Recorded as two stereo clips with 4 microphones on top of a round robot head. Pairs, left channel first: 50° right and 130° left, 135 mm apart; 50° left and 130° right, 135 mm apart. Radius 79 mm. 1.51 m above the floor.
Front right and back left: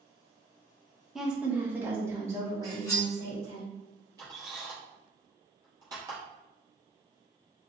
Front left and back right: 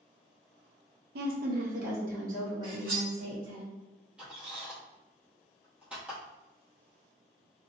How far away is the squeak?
About 0.9 m.